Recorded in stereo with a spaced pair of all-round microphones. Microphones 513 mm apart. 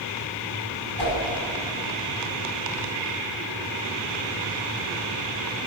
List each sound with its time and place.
1.0 s a whoosh: 50° right (ahead or behind), 5.5 m